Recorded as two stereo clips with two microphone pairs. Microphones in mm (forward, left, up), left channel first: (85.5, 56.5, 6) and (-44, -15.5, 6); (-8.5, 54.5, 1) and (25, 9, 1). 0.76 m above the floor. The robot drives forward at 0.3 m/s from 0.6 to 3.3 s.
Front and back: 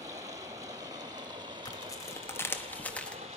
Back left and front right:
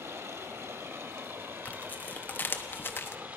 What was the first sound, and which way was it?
Running water, 85° right.